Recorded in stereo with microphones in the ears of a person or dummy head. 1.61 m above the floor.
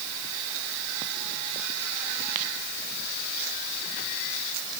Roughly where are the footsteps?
I don't hear footsteps.